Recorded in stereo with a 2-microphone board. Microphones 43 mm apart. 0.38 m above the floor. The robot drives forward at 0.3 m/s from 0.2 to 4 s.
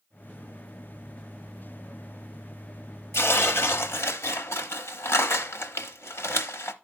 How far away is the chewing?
I don't hear chewing.